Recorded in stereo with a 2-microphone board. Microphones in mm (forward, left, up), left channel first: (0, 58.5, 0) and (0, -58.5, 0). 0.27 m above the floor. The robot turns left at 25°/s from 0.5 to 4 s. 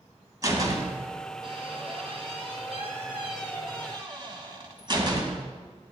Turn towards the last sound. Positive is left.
turn(degrees=-40)  # may be behind; listen again after turning